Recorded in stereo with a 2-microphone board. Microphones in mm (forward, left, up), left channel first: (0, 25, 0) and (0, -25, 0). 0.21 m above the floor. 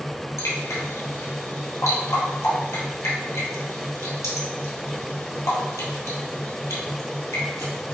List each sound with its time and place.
0.4 s dripping: 75° left (ahead or behind), 1.4 m